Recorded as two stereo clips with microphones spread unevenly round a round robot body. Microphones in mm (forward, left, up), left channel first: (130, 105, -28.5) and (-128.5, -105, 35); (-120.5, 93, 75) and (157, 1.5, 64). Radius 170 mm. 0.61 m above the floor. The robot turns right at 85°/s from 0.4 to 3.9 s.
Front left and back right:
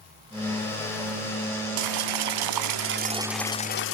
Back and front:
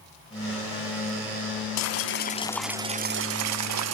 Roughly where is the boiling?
Behind.